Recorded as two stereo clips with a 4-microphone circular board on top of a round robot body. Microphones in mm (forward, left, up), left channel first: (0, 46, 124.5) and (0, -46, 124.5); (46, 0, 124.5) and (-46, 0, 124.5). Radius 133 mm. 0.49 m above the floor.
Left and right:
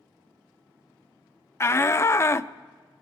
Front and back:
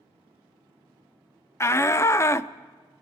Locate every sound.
1.6 s a shout: 45° left, 0.8 m